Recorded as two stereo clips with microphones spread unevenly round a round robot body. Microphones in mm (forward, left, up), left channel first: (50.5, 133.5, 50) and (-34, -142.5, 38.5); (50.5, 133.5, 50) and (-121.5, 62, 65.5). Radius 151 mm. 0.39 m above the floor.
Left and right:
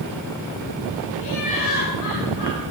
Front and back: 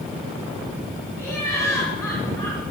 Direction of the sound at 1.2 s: 100° left.